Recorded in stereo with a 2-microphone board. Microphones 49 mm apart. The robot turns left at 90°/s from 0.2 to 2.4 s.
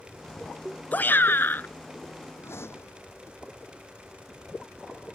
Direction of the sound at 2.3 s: 65° left (ahead or behind).